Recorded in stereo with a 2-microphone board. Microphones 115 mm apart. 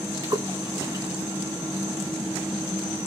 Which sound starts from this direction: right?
A splash, at 0.2 s.